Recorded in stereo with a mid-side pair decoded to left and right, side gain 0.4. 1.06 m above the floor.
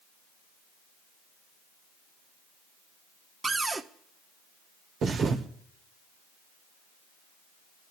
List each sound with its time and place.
3.4 s a cupboard door: 40° right, 1.3 m
5.0 s a thud: 65° right, 1.8 m